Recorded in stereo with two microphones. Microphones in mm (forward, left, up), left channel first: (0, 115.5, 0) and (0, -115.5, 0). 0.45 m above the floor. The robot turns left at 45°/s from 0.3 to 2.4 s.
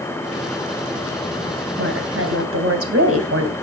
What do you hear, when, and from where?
1.8 s a woman speaking: 50° right (ahead or behind), 3 m; by 3.5 s 70° right (ahead or behind), 3 m